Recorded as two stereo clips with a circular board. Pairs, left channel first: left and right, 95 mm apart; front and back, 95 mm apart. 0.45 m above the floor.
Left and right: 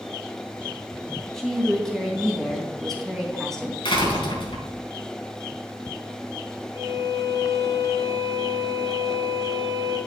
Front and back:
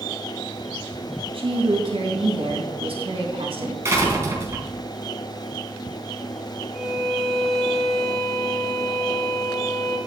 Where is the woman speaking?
175° left, 3 m.